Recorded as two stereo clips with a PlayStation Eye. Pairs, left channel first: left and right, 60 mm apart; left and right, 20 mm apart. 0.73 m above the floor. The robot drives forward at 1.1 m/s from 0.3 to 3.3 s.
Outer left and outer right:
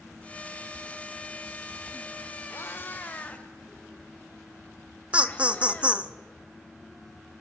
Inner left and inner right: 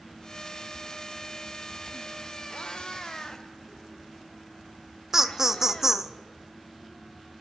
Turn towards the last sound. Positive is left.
turn(degrees=-20)  # may be behind; listen again after turning